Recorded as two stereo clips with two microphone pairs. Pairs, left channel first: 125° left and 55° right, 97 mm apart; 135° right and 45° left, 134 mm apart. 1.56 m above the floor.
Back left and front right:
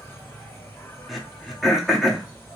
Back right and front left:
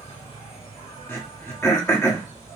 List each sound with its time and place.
0.0 s an insect: 170° right, 2 m
1.1 s throat clearing: 140° right, 1.1 m